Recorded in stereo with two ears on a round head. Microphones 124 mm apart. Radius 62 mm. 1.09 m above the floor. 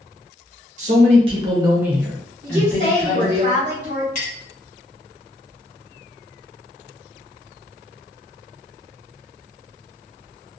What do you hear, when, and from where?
0.8 s a man speaking: 55° right (ahead or behind), 0.9 m; by 3.4 s 35° left (ahead or behind), 1.2 m
2.4 s a woman speaking: 55° right (ahead or behind), 1.2 m
4.2 s a clink: 65° left (ahead or behind), 1.2 m